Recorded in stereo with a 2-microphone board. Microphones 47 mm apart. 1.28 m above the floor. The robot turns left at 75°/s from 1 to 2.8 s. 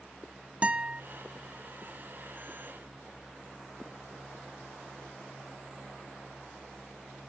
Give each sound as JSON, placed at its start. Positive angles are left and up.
{"t": 0.6, "sound": "a guitar", "side_deg": -25, "distance_m": 0.8}